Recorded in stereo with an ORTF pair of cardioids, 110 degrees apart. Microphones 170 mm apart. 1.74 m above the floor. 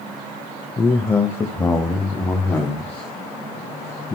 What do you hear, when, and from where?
0.8 s a man speaking: 15° left, 0.6 m